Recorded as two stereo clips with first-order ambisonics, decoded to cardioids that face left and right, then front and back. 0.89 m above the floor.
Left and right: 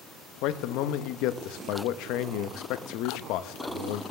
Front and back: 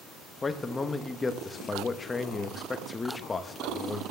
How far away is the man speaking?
About 0.8 m.